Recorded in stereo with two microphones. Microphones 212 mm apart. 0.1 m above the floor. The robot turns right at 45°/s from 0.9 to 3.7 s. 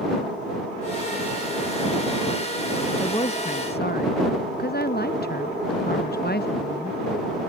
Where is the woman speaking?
15° left; by 7.0 s 50° left.